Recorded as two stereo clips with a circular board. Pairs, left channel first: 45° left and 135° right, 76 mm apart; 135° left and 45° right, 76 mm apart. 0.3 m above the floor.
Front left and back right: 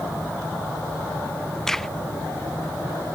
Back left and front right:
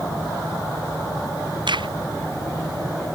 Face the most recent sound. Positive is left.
turn(degrees=-40)